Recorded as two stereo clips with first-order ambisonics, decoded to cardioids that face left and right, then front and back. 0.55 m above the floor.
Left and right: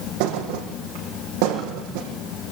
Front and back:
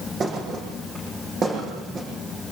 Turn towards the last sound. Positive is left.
turn(degrees=-110)